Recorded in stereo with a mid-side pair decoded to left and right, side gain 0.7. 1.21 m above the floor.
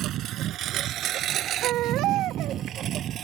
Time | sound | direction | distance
0.0 | a lawn mower | 55° right | ?
1.6 | a baby crying | 60° right | ?